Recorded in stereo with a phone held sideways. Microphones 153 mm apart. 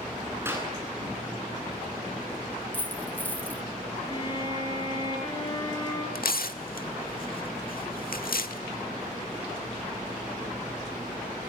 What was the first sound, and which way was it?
A clap, 15° right (ahead or behind).